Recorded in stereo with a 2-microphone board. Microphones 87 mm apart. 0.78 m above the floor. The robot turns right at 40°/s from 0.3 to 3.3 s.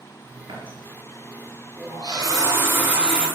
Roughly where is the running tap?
Right.